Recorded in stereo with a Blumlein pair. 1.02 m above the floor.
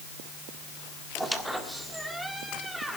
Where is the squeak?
5° right, 1.5 m.